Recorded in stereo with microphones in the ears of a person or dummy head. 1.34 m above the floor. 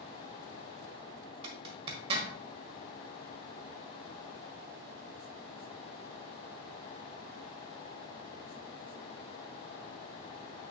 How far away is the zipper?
About 1.5 m.